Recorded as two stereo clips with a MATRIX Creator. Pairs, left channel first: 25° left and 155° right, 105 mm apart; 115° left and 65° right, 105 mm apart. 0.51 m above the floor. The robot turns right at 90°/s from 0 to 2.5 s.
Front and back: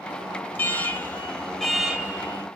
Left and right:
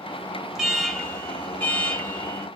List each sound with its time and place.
0.6 s an alarm: 10° left, 1.9 m; by 2.5 s straight behind, 1.9 m